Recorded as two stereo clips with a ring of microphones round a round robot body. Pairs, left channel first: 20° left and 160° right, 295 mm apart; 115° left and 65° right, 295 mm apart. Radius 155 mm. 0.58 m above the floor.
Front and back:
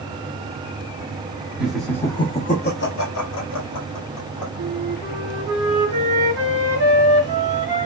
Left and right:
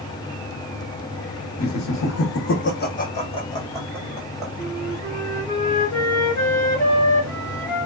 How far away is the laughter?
About 1.0 m.